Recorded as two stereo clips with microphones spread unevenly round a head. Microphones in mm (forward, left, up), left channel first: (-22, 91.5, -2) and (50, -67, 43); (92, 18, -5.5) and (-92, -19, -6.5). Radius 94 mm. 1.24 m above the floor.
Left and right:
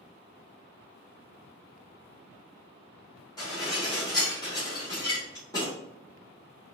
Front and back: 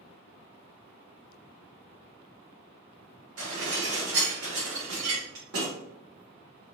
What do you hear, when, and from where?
3.4 s dishes clattering: 175° right, 2 m